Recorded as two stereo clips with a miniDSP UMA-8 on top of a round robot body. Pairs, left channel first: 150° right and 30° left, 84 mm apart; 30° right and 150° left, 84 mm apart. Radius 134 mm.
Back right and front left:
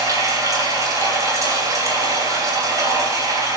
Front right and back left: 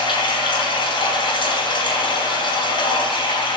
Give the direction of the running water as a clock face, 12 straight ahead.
1 o'clock.